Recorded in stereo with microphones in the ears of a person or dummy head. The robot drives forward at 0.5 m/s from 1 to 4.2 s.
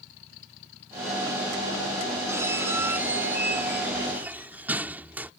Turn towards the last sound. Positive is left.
turn(degrees=-5)  # may be behind; listen again after turning